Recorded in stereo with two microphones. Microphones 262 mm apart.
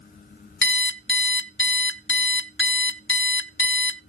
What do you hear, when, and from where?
0.6 s an alarm clock: 45° left (ahead or behind), 0.5 m